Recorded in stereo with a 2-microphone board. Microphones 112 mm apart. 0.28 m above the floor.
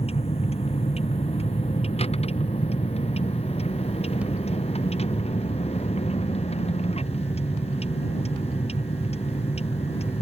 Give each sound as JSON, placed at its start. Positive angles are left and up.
{"t": 0.0, "sound": "a vehicle", "side_deg": 65}